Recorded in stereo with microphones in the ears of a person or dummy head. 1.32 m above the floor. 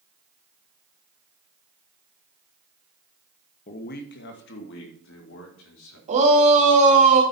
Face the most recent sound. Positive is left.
turn(degrees=-40)  # may be behind; listen again after turning